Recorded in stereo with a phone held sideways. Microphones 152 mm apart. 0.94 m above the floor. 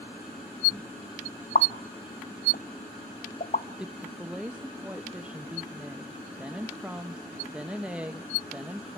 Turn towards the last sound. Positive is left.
turn(degrees=-5)  # may be behind; listen again after turning